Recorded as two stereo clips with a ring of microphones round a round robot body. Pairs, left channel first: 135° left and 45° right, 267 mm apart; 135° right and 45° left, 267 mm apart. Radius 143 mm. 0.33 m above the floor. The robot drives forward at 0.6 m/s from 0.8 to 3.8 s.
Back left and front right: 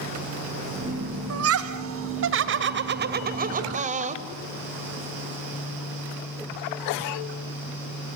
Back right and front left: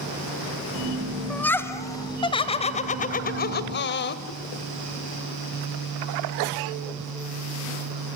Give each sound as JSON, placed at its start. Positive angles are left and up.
{"t": 1.3, "sound": "laughter", "azimuth_deg": -50, "distance_m": 2.5}